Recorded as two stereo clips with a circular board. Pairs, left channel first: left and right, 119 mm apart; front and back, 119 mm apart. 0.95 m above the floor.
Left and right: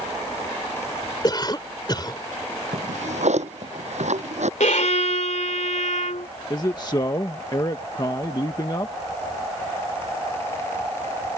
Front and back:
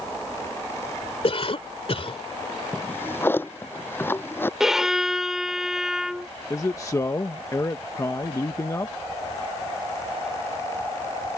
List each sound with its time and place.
1.2 s a cough: 35° left
2.7 s a drawer: 70° right
4.6 s a violin: 95° left
6.5 s a man speaking: 50° left